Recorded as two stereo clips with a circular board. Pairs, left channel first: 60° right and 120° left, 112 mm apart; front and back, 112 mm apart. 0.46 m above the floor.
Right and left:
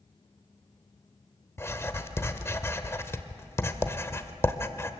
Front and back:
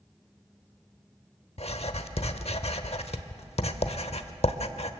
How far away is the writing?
About 0.8 m.